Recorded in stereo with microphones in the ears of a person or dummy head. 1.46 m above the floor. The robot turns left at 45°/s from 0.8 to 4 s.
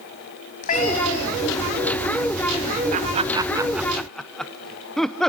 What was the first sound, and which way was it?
A cat meowing, 125° left.